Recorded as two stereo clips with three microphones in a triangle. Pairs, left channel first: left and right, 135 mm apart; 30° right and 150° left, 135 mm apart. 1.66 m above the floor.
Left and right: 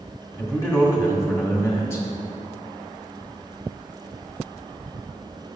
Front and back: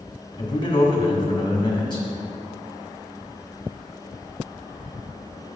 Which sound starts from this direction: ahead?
A man speaking, at 0.4 s.